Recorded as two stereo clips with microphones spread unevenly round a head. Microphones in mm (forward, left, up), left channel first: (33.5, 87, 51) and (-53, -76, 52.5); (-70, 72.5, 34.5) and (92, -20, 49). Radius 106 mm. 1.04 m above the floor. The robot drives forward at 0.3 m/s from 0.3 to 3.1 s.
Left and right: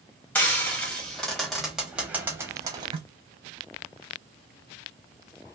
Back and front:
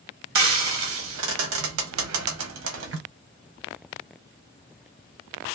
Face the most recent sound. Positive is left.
turn(degrees=-60)